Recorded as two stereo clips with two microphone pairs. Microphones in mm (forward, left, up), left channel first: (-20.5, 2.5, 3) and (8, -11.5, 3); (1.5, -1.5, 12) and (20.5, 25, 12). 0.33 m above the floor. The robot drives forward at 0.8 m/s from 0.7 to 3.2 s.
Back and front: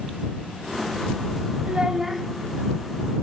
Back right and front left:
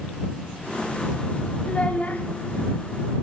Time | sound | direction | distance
1.6 | a child speaking | 75° right | 0.7 m